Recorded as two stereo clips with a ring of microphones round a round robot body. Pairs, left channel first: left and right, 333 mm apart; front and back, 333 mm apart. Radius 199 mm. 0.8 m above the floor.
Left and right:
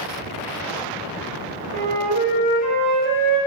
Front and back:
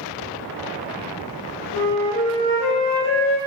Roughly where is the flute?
Behind right.